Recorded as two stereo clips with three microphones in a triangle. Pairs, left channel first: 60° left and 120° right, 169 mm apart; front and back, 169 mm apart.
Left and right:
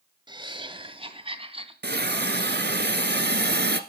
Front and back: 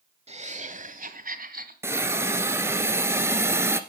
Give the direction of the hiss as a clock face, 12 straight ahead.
4 o'clock.